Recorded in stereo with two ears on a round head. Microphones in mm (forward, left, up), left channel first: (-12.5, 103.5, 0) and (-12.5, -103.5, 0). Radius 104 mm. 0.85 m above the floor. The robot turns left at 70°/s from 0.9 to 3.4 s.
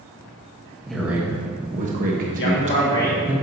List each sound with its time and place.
0.9 s a man speaking: centre (ahead or behind), 1.1 m; by 3.4 s 5° right (ahead or behind), 1.1 m
2.4 s a man speaking: 65° left, 1.9 m; by 3.2 s 5° left, 1.9 m